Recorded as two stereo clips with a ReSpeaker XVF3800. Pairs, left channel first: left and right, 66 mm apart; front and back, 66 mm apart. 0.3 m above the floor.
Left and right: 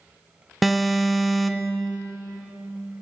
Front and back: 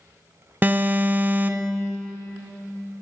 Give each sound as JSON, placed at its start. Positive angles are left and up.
{"t": 0.6, "sound": "an alarm", "azimuth_deg": 180, "distance_m": 0.6}